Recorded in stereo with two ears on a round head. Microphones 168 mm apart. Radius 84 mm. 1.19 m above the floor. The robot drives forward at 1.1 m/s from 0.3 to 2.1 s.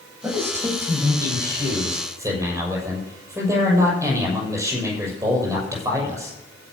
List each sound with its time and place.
0.2 s a man speaking: 15° right (ahead or behind), 8.5 m